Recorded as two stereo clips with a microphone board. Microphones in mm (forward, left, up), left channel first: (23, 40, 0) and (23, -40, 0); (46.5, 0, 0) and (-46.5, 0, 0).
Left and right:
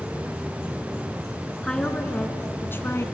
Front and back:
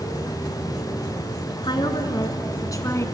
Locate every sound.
1.6 s a woman speaking: 10° left, 3 m; by 3.0 s 45° left, 2.5 m